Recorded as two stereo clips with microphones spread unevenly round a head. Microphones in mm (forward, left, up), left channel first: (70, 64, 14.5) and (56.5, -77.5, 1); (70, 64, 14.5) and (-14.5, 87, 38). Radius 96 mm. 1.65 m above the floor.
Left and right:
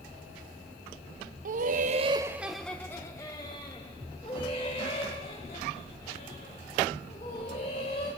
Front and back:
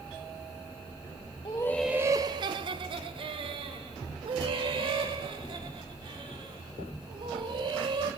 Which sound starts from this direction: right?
Laughter, at 1.4 s.